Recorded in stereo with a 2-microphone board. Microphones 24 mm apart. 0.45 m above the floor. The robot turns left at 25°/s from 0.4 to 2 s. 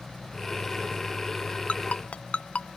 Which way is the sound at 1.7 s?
80° left.